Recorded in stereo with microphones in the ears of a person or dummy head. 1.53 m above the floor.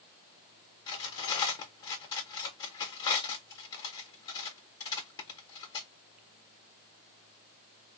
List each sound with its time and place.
0.9 s cutlery clinking: 15° left (ahead or behind), 0.8 m